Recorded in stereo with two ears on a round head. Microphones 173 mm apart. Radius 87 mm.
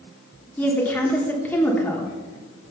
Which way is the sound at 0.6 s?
10° left (ahead or behind).